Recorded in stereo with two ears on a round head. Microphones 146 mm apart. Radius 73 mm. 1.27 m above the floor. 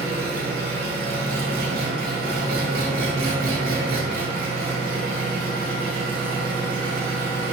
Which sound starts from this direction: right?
An engine running, at 0.0 s.